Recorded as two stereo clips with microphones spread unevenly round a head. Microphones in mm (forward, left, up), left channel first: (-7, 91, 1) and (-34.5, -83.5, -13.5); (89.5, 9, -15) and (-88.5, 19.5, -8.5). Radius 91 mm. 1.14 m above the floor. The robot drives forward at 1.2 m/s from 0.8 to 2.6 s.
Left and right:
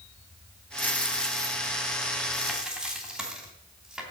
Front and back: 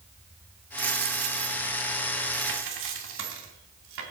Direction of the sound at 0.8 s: 155° left.